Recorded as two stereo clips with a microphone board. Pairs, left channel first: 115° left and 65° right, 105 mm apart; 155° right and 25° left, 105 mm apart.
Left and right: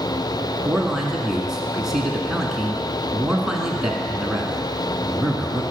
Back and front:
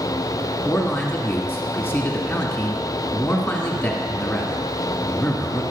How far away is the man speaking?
About 1.5 m.